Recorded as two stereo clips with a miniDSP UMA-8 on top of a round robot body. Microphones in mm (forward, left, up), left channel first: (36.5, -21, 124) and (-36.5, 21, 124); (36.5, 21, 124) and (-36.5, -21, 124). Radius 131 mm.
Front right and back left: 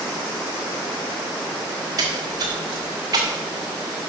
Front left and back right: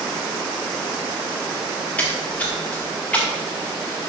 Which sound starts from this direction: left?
A splash, at 2.0 s.